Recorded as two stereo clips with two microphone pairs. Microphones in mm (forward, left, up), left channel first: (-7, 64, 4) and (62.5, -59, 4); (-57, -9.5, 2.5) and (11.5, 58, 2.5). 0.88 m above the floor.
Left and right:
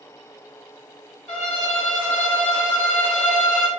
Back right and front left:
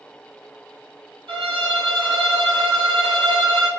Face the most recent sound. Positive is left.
turn(degrees=35)